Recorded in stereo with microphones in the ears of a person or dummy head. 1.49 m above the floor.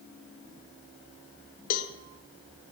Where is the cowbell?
45° left (ahead or behind), 0.6 m.